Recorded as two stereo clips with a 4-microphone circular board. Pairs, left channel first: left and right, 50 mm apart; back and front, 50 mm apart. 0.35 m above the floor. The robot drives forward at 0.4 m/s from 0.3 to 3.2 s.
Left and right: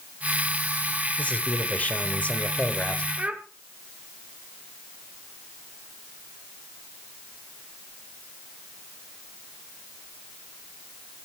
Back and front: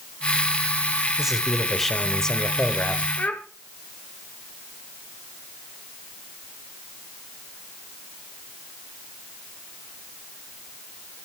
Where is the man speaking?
75° left, 1.1 m; by 3.1 s 140° left, 1.2 m.